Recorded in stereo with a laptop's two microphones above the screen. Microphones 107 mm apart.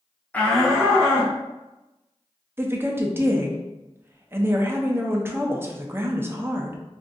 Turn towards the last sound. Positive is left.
turn(degrees=-20)  # may be behind; listen again after turning